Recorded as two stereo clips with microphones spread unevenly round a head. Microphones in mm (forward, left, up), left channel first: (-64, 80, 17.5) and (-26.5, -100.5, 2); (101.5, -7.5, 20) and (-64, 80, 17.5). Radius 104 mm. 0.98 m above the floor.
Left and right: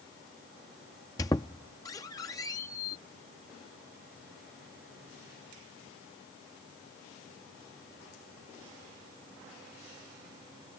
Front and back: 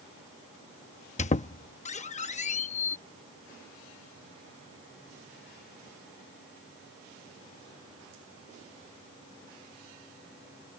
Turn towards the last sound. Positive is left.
turn(degrees=25)